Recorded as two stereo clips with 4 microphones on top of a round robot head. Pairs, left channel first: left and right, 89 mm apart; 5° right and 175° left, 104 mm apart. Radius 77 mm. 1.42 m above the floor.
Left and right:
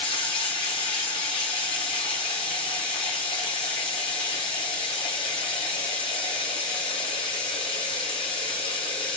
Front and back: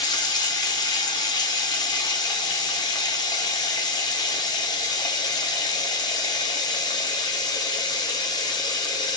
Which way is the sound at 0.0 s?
45° left.